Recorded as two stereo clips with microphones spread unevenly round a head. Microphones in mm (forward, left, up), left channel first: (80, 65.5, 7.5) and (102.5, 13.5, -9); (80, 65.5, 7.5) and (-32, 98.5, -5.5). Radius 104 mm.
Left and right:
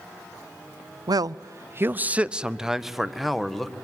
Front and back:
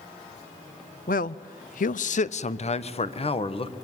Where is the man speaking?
60° right, 0.5 m; by 3.7 s 25° left, 1.8 m.